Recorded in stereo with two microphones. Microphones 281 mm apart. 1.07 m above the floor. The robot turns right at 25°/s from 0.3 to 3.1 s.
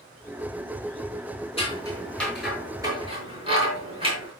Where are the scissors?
20° left (ahead or behind), 7 m; by 4.3 s 20° right (ahead or behind), 7 m.